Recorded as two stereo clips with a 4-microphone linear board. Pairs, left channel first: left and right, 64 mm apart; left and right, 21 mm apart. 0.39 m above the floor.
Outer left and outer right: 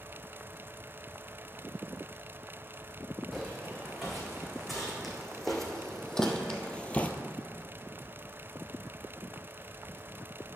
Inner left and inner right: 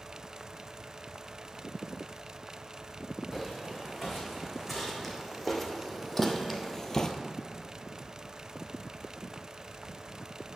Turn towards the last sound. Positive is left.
turn(degrees=25)  # may be behind; listen again after turning